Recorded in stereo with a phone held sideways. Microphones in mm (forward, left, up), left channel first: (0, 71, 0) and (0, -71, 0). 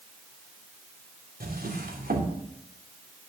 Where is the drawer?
80° right, 2.5 m.